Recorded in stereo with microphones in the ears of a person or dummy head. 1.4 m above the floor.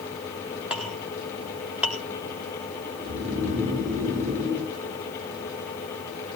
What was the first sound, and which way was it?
A clink, 5° right (ahead or behind).